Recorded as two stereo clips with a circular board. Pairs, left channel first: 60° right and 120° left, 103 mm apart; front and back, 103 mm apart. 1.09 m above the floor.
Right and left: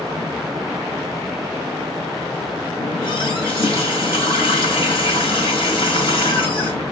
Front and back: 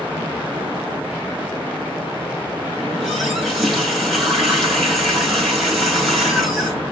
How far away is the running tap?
About 7.5 m.